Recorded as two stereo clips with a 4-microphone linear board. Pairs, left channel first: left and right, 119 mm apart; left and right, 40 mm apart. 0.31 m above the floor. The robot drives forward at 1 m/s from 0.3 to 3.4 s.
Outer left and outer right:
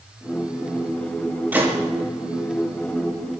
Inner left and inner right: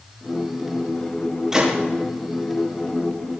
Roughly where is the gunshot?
Centre.